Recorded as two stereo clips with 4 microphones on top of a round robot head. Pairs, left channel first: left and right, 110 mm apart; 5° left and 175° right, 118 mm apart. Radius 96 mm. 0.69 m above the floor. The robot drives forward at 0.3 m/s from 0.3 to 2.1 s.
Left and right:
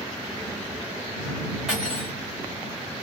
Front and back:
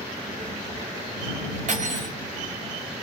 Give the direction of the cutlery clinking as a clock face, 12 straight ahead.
6 o'clock.